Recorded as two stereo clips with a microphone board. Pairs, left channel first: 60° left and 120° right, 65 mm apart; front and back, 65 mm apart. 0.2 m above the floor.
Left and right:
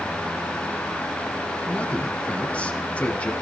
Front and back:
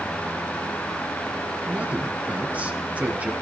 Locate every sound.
1.7 s a man speaking: 120° left, 1.5 m